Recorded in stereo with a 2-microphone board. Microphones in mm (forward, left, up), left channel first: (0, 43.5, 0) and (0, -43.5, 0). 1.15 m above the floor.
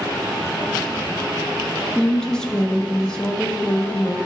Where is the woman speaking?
10° left (ahead or behind), 1.2 m.